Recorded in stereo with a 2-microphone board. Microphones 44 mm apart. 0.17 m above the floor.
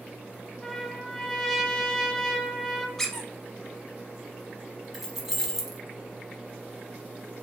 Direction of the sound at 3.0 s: 10° left (ahead or behind).